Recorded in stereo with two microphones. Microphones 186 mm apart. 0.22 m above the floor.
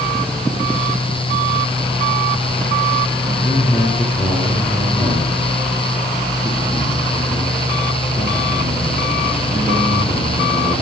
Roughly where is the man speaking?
Centre.